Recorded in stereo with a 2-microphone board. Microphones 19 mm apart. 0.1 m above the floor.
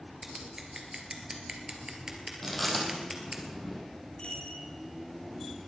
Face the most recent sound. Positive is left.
turn(degrees=75)  # may be behind; listen again after turning